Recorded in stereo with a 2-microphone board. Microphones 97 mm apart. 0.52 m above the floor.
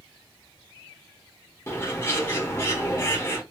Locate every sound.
1.7 s a bird: 25° left (ahead or behind), 1.1 m